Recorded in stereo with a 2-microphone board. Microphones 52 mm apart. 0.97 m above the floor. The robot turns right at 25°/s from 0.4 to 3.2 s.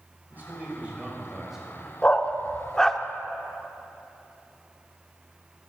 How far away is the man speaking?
About 5 m.